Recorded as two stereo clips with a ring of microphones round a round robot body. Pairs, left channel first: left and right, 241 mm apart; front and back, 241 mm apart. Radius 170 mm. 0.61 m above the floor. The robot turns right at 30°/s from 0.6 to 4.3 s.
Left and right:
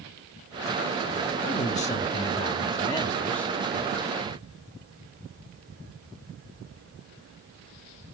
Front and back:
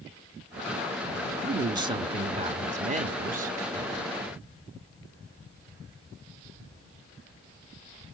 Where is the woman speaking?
115° left, 1.1 m; by 3.6 s 175° left, 1.1 m.